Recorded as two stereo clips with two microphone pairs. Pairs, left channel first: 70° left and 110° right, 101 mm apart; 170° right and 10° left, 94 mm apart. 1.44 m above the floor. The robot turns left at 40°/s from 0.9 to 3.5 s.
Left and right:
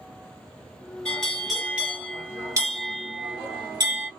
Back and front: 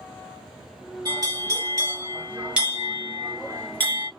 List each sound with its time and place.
1.1 s a bell: 5° right, 1.4 m; by 4.1 s 105° right, 1.4 m